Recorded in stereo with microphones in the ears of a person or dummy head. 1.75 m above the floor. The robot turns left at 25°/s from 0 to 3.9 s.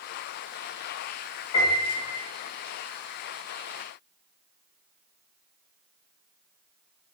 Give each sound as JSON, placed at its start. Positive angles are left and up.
{"t": 1.5, "sound": "a piano", "side_deg": 20, "distance_m": 1.2}